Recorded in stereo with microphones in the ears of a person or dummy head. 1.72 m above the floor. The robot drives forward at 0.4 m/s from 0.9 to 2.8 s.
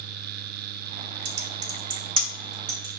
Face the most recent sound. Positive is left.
turn(degrees=-45)  # may be behind; listen again after turning